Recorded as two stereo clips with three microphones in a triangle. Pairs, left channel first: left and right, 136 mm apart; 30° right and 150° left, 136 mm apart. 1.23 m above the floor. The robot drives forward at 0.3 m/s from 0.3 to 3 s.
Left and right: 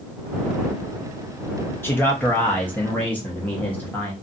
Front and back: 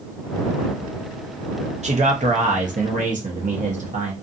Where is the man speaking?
160° left, 0.6 m; by 4.1 s 165° left, 0.9 m.